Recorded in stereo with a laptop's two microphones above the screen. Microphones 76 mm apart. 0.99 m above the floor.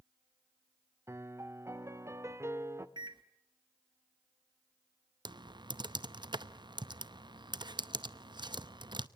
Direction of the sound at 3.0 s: 85° right.